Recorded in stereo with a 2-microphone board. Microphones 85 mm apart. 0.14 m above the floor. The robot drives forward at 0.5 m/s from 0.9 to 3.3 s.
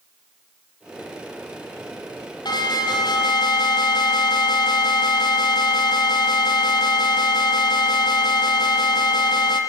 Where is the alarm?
65° left (ahead or behind), 6.5 m.